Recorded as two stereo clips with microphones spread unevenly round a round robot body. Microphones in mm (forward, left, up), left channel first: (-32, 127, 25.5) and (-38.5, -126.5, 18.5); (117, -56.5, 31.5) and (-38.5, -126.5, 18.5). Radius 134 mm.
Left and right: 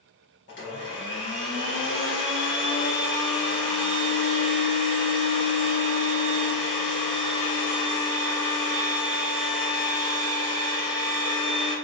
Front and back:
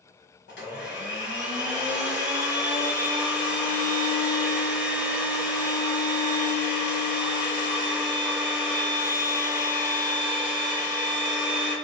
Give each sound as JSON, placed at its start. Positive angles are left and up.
{"t": 0.5, "sound": "a blender", "azimuth_deg": 45, "distance_m": 2.0}